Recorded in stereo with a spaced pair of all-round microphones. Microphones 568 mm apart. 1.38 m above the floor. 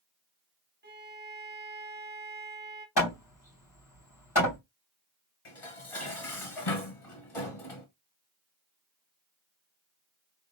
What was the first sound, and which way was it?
A violin, 20° right (ahead or behind).